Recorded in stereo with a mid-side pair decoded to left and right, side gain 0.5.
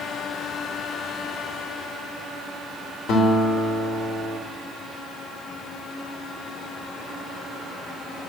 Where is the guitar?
70° left, 4.5 m.